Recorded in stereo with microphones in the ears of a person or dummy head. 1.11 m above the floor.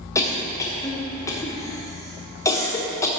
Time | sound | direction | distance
0.1 | a cough | 20° left (ahead or behind) | 0.9 m